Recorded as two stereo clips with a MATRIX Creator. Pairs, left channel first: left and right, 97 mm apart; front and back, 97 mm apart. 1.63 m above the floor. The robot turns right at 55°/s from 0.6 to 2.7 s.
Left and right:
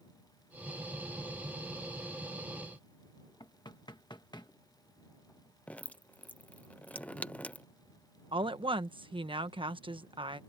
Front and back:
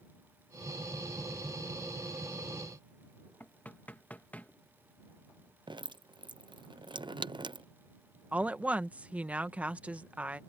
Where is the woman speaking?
105° right.